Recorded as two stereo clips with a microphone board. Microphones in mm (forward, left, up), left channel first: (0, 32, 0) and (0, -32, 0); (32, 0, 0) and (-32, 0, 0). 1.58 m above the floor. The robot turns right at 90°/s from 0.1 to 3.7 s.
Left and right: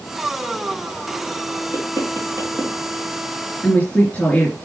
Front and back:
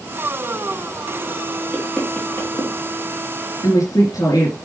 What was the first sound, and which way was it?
Knocking, 110° right.